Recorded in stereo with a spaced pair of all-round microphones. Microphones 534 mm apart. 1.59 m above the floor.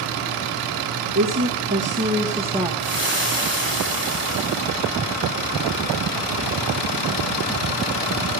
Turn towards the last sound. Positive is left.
turn(degrees=-20)  # may be behind; listen again after turning